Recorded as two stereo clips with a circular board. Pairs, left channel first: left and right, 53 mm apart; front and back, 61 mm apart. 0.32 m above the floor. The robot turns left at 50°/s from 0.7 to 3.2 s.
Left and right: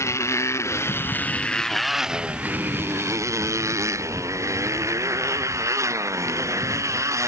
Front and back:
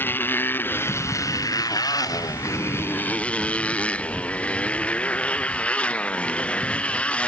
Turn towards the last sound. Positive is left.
turn(degrees=-70)